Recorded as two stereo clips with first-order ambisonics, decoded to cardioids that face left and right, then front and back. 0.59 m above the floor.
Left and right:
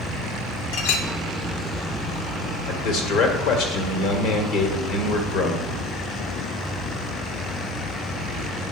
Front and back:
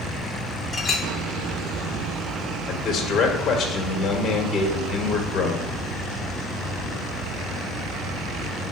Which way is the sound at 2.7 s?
55° left.